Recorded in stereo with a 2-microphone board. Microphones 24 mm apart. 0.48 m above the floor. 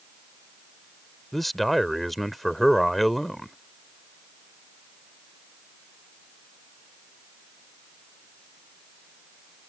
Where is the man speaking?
10° left (ahead or behind).